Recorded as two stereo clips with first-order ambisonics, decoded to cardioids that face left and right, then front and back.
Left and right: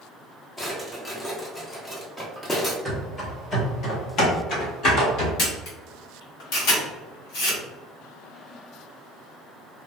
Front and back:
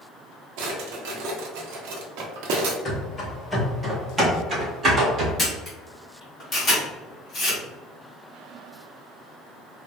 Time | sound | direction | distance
0.6 | a drawer | 170° left | 0.6 m
2.9 | running footsteps | 15° left | 1.0 m
5.4 | a camera shutter | 70° left | 1.6 m